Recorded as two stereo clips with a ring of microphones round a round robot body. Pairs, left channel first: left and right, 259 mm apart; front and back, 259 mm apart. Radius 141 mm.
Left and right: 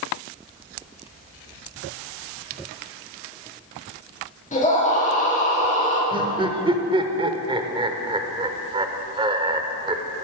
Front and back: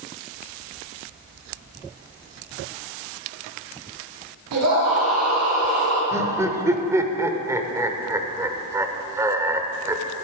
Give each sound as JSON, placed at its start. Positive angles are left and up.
{"t": 4.5, "sound": "a scream", "azimuth_deg": 150, "distance_m": 5.0}
{"t": 6.1, "sound": "laughter", "azimuth_deg": -120, "distance_m": 0.9}